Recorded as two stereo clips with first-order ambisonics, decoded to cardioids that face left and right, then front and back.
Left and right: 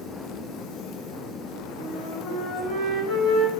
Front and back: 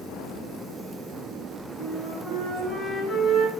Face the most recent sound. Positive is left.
turn(degrees=110)